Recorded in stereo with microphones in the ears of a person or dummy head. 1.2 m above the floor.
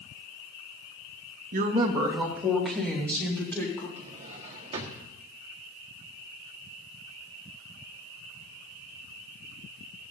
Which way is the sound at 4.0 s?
30° right (ahead or behind).